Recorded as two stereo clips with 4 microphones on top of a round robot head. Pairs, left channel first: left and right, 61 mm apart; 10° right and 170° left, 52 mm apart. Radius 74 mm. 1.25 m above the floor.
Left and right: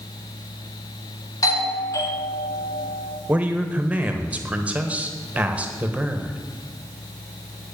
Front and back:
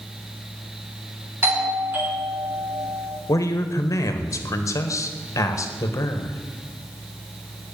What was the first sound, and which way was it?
A doorbell, 125° left.